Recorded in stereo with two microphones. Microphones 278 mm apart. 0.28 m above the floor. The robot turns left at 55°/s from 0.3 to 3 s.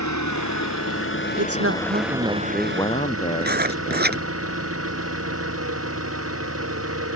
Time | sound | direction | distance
0.0 | an engine running | 95° left | ?
1.4 | a man speaking | 115° right | ?
3.4 | writing | 35° right (ahead or behind) | ?